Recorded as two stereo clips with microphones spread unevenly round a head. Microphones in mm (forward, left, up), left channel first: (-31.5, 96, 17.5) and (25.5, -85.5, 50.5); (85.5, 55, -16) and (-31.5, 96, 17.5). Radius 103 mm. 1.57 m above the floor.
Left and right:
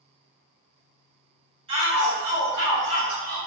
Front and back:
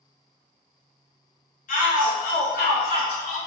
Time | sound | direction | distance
1.7 | a shout | 10° right | 1.6 m